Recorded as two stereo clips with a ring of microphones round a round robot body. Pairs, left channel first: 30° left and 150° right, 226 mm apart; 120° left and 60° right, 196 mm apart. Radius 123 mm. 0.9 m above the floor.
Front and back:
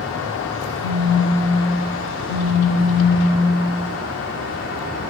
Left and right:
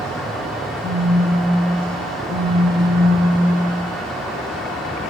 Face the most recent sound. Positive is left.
turn(degrees=25)